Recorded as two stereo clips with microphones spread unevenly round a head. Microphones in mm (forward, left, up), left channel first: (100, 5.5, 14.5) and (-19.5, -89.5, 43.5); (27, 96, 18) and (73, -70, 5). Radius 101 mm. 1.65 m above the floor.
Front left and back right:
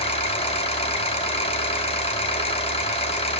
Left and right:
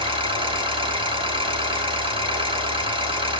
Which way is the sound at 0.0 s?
15° right.